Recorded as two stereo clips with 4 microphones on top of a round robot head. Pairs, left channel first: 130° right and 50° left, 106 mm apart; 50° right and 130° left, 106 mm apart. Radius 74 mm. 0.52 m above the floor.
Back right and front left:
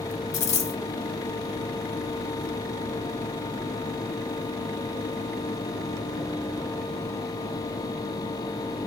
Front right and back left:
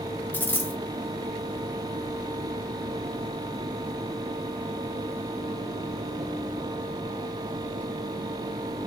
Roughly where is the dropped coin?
Behind right.